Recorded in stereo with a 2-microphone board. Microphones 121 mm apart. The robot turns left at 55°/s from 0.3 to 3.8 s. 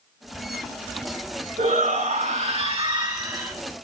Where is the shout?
75° right, 1.6 m; by 3.5 s 175° left, 1.6 m.